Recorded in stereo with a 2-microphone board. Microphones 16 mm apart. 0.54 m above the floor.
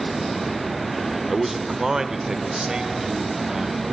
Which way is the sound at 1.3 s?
10° right (ahead or behind).